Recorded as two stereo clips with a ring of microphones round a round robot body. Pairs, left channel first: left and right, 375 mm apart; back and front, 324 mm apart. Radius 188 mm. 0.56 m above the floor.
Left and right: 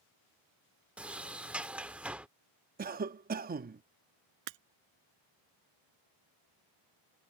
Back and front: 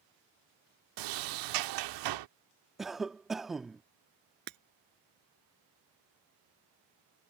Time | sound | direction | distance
1.0 | a sliding door | 5° right | ?
2.8 | a cough | 85° right | ?
4.5 | breaking glass | 65° right | ?